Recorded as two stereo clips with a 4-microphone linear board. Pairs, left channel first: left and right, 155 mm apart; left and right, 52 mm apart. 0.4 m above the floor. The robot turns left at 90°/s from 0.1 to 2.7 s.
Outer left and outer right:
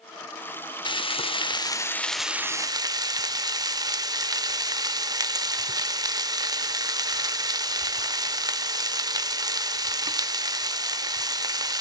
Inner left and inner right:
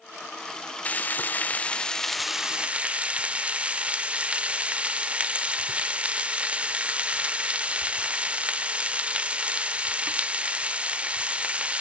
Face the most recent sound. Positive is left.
turn(degrees=-45)